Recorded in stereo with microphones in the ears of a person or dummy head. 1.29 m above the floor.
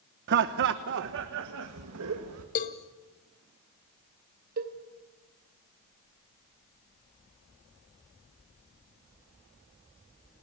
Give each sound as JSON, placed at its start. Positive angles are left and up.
{"t": 0.3, "sound": "laughter", "side_deg": -55, "distance_m": 1.0}
{"t": 2.5, "sound": "a cowbell", "side_deg": 40, "distance_m": 1.4}
{"t": 4.6, "sound": "a cowbell", "side_deg": -50, "distance_m": 2.5}